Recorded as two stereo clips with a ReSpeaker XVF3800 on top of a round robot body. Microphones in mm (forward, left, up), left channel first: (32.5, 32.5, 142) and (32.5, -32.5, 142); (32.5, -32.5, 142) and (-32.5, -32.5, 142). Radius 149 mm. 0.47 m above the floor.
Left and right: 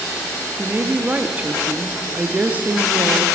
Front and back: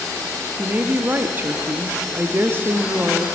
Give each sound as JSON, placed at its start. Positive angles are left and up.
{"t": 0.6, "sound": "a woman speaking", "azimuth_deg": -140, "distance_m": 0.9}